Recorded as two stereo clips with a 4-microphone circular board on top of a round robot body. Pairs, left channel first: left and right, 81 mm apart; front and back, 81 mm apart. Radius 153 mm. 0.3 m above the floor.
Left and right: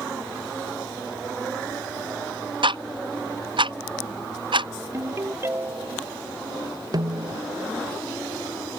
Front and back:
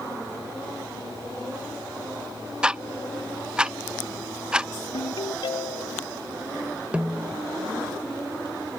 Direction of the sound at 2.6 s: 100° right.